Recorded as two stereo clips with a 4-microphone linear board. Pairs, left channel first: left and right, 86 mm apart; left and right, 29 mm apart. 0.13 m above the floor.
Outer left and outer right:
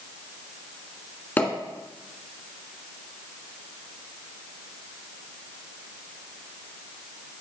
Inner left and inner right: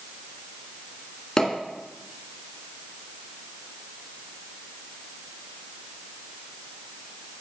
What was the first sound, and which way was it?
A pop, 20° left (ahead or behind).